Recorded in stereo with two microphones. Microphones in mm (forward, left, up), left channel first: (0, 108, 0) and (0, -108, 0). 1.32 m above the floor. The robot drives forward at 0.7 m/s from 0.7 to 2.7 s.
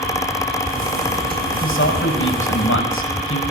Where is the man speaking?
65° left (ahead or behind), 6 m; by 3.4 s 75° left (ahead or behind), 6 m.